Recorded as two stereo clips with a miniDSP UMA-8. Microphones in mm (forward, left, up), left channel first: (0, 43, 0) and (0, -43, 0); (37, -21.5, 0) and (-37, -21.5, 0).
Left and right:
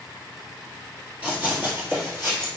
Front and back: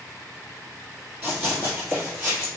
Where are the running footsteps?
140° right, 1.9 m; by 2.5 s 120° right, 2 m.